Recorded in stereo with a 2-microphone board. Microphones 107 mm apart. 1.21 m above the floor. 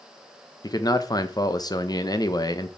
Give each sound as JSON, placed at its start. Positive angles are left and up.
{"t": 0.6, "sound": "a man speaking", "side_deg": 35, "distance_m": 0.9}